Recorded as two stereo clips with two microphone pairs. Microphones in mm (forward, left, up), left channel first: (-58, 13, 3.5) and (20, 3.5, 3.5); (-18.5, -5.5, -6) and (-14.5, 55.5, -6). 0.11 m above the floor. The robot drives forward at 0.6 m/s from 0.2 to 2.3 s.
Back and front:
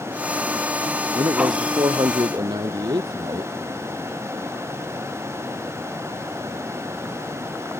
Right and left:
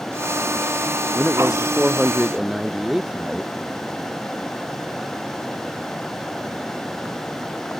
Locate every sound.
1.1 s a man speaking: 5° left; by 3.5 s 10° left